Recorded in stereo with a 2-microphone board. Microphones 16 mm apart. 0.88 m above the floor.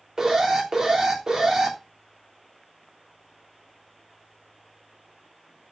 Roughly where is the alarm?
Right.